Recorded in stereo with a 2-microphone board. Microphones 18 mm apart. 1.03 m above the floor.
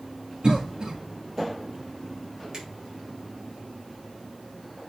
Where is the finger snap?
45° right (ahead or behind), 4.5 m.